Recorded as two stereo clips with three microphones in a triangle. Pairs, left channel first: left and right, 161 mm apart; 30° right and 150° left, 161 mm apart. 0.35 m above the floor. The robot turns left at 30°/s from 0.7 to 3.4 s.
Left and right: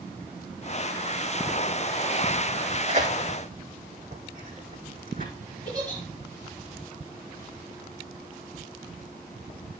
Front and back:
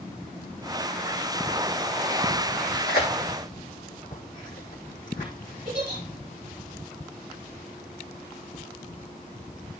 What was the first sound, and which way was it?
Tearing paper, 45° right.